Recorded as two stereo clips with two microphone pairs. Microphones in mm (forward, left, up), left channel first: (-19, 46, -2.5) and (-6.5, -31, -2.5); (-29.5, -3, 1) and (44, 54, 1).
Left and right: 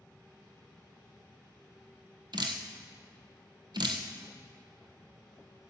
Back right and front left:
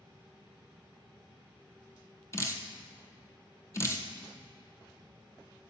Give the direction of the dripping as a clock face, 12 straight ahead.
3 o'clock.